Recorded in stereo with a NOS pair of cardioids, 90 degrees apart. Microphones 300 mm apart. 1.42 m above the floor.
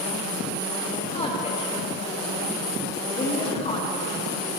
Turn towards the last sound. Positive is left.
turn(degrees=20)